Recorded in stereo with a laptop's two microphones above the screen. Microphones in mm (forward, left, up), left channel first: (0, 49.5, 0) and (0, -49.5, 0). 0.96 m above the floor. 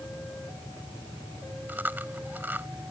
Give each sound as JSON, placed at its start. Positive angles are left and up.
{"t": 1.7, "sound": "chewing", "side_deg": -20}